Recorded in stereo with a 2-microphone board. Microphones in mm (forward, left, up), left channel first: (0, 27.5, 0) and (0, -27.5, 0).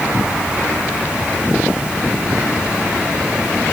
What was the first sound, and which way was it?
Only background noise.